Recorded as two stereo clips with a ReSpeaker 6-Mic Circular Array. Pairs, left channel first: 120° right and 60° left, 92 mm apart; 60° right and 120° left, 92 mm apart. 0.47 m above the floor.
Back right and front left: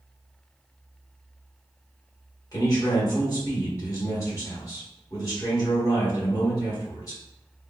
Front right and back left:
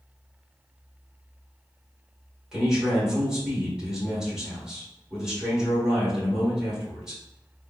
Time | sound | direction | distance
2.5 | a man speaking | 160° right | 1.5 m